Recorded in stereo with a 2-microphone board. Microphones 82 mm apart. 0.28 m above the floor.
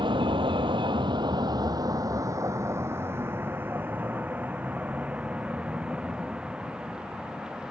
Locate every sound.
0.0 s a vehicle: 75° right (ahead or behind); by 7.7 s 10° right (ahead or behind)